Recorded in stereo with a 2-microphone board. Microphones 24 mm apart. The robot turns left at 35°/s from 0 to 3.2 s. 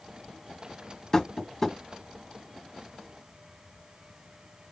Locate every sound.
1.1 s tapping: 20° left (ahead or behind), 0.9 m; by 1.8 s 10° left (ahead or behind), 0.9 m